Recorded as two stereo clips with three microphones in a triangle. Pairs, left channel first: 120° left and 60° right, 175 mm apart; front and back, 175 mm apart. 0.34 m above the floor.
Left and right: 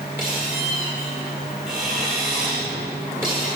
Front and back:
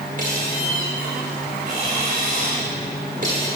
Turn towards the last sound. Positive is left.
turn(degrees=-135)